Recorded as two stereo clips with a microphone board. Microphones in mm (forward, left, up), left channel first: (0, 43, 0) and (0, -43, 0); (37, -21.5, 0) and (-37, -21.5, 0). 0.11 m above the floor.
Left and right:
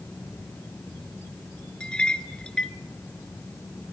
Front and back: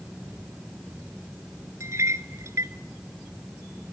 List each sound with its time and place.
1.8 s a clink: 165° left, 1.1 m